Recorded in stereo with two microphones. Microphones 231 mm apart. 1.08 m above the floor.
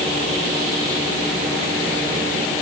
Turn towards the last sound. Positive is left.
No sound to turn to.